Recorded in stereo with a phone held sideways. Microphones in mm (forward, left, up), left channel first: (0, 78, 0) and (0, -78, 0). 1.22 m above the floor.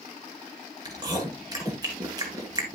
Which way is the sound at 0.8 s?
25° right (ahead or behind).